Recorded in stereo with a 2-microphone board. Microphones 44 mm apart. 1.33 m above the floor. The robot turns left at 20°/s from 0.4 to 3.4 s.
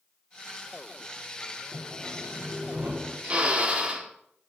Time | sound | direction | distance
1.7 | sawing | 60° right (ahead or behind) | 4 m
3.2 | a drill | 30° right (ahead or behind) | 1.8 m